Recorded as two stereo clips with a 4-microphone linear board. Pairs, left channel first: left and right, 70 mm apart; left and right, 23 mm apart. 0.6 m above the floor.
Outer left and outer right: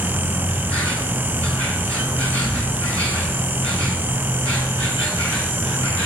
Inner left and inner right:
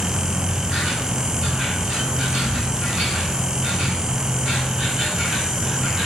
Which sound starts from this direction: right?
An insect, at 0.0 s.